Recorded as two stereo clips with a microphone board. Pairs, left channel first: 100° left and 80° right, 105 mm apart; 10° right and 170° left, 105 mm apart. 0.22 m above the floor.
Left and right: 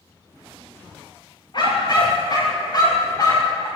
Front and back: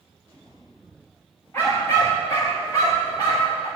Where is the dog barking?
55° left, 9.5 m; by 3.7 s 45° left, 11 m.